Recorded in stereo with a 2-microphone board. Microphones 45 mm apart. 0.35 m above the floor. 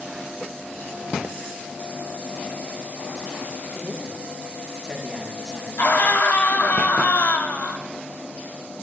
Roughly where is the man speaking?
Right.